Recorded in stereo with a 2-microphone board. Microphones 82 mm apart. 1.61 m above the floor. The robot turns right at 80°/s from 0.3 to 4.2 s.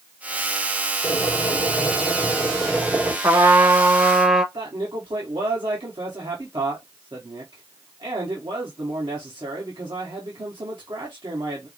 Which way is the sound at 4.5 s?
65° right (ahead or behind).